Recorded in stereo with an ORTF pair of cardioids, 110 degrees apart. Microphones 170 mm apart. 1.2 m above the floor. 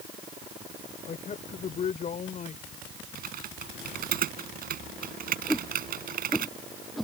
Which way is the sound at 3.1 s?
55° right.